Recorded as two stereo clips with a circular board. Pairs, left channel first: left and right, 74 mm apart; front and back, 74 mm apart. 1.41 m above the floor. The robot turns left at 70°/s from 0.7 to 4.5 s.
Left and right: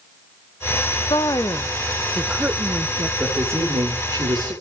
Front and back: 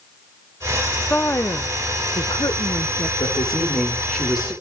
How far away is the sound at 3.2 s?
About 5.5 m.